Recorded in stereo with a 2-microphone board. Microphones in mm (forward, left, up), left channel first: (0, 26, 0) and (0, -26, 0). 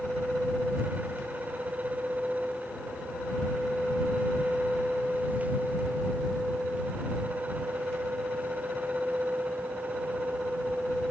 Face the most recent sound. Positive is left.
No sound to turn to.